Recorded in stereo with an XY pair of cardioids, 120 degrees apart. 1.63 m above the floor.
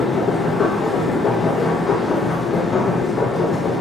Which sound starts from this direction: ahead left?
A machine running, at 0.0 s.